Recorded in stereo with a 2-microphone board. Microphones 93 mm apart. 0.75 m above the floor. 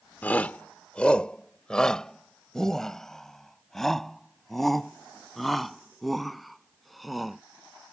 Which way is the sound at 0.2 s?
15° left (ahead or behind).